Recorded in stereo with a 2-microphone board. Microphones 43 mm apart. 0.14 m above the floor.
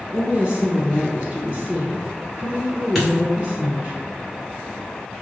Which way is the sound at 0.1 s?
25° right (ahead or behind).